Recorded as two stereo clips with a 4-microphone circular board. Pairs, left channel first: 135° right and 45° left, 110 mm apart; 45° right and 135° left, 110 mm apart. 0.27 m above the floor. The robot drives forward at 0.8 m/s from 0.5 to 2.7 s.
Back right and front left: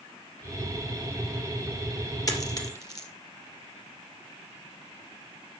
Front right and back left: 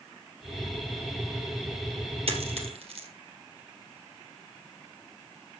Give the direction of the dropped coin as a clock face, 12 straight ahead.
6 o'clock.